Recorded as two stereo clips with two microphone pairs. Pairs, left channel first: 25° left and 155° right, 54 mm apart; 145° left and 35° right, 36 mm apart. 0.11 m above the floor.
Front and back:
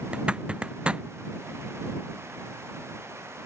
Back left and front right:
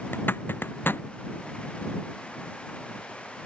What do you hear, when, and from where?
0.1 s a zipper: 140° left